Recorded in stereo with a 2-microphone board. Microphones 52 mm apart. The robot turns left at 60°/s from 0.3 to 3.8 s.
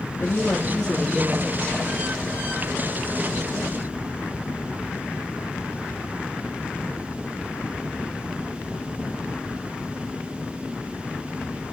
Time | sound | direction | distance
0.2 | a woman speaking | 45° left | 3.5 m